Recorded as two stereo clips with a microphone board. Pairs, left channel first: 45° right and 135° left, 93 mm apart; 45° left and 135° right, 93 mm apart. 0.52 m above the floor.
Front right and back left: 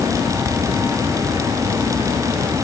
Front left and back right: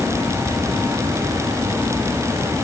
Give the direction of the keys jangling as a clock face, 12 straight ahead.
No keys jangling in this recording.